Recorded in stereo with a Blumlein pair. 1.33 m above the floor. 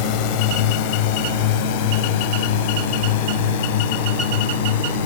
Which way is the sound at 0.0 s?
45° left.